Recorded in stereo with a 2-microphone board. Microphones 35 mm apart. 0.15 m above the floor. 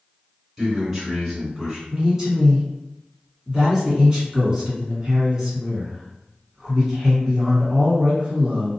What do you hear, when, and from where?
0.6 s a man speaking: 5° right (ahead or behind), 1.8 m
1.9 s a man speaking: 20° right (ahead or behind), 1.7 m